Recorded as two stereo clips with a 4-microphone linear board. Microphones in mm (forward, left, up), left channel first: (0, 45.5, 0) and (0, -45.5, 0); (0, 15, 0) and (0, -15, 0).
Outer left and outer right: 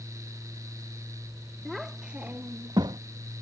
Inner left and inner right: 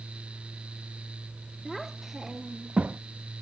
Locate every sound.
1.6 s a child speaking: centre (ahead or behind); by 3.0 s 60° right (ahead or behind)